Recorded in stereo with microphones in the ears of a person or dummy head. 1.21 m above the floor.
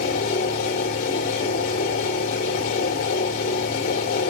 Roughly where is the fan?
Left.